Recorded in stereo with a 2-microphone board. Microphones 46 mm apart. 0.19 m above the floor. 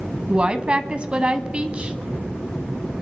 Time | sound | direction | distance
0.3 | a woman speaking | 25° right (ahead or behind) | 1.1 m